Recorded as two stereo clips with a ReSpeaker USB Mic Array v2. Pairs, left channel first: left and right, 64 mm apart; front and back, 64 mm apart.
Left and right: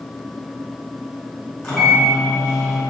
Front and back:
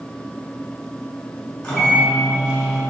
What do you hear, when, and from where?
1.6 s a microwave: 45° left, 1.3 m